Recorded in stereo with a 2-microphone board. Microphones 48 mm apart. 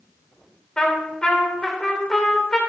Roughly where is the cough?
I don't hear a cough.